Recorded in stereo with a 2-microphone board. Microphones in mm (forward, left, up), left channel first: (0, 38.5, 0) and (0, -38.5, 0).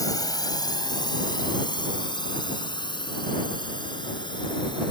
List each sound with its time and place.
0.0 s a drone: 50° left (ahead or behind); by 4.9 s 80° left